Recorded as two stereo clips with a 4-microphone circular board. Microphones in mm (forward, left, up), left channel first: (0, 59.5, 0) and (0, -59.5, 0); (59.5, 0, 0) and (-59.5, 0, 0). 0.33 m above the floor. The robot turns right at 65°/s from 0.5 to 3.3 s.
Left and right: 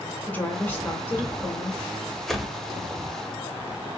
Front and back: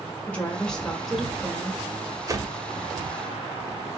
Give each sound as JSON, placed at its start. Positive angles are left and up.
{"t": 0.3, "sound": "a woman speaking", "azimuth_deg": 55, "distance_m": 0.9}
{"t": 2.3, "sound": "a whoosh", "azimuth_deg": 175, "distance_m": 0.6}